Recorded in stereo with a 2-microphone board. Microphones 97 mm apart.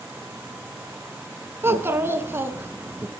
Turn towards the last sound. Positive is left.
turn(degrees=-25)  # may be behind; listen again after turning